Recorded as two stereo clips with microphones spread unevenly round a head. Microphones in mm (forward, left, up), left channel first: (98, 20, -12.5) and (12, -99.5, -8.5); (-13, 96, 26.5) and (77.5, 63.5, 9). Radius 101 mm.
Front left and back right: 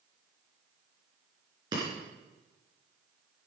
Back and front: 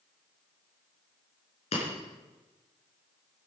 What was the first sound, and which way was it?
Breaking glass, 165° left.